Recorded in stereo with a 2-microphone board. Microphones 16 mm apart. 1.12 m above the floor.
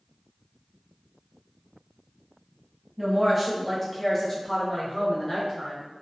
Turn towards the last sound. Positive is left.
turn(degrees=35)  # may be behind; listen again after turning